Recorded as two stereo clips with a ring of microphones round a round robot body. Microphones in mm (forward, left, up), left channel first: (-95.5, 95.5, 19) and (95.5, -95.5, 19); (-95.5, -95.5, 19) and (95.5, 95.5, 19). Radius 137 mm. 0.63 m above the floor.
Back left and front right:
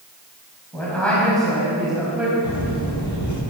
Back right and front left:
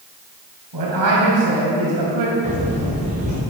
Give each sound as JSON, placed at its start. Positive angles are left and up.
{"t": 0.7, "sound": "a man speaking", "azimuth_deg": 50, "distance_m": 4.0}
{"t": 2.4, "sound": "footsteps", "azimuth_deg": 110, "distance_m": 4.0}